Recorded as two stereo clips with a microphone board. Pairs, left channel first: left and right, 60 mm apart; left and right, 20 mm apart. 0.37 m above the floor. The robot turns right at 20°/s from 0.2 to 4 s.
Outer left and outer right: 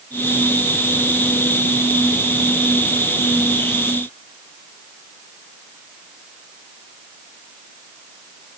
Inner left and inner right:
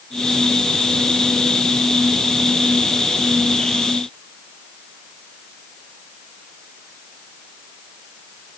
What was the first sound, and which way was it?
Only background noise.